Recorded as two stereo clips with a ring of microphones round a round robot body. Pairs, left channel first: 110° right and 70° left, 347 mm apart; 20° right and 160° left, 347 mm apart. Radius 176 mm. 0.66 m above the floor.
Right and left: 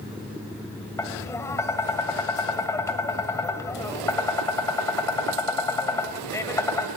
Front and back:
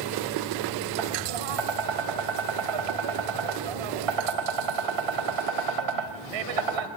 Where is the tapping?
165° left, 2 m.